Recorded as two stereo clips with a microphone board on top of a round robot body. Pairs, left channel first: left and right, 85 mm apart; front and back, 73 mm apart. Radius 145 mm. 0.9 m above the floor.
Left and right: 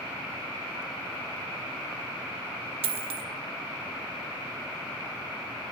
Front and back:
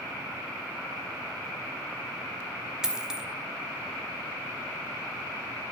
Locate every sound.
2.8 s a dropped coin: 100° right, 0.9 m